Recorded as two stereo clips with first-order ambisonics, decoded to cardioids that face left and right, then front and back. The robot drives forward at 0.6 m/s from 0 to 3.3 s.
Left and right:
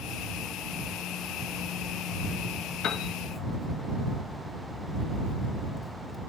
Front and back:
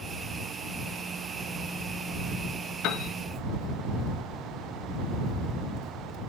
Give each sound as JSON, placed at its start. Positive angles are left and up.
{"t": 2.8, "sound": "a piano", "azimuth_deg": 40, "distance_m": 0.8}